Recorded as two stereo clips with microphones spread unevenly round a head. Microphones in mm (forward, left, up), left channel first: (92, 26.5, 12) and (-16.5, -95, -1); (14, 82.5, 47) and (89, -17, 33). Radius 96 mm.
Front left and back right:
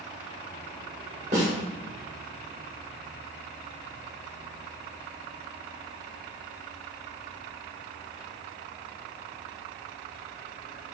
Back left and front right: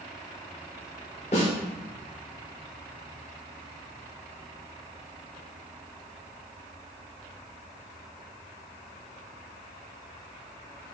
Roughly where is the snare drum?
Behind.